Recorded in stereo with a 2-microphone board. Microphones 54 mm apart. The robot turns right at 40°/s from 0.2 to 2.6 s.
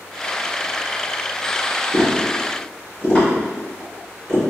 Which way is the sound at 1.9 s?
5° left (ahead or behind).